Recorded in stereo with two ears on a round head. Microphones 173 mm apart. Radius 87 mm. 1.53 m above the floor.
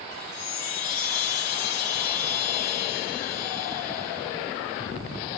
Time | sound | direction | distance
0.1 | a chime | 70° left (ahead or behind) | 2.0 m